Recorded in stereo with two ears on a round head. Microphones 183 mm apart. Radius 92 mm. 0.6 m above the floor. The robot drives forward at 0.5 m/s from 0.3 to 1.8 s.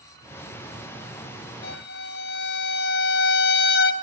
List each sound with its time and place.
1.6 s a violin: 55° left (ahead or behind), 3 m; by 3.9 s 60° left (ahead or behind), 2.5 m